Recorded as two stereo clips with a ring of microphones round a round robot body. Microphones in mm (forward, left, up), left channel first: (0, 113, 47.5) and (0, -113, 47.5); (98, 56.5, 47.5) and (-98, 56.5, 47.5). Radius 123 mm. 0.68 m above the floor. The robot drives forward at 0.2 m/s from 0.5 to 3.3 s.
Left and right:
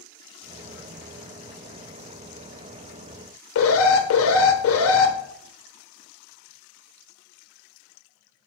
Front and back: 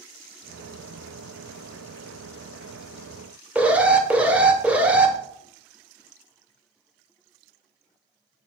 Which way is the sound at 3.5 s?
95° left.